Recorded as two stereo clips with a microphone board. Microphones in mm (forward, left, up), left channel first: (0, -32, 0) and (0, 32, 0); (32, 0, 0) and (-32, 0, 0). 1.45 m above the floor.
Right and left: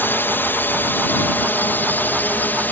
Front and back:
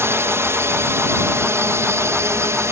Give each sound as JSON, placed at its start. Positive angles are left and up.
{"t": 0.0, "sound": "a drone", "azimuth_deg": -140}